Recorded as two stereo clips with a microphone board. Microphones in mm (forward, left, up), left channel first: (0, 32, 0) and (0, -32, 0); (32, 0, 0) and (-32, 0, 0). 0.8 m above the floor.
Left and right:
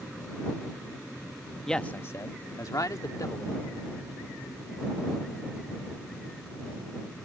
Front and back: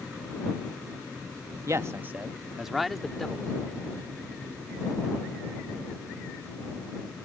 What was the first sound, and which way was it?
A man speaking, 170° left.